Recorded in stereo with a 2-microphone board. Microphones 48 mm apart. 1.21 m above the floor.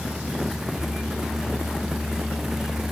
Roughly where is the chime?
I don't hear a chime.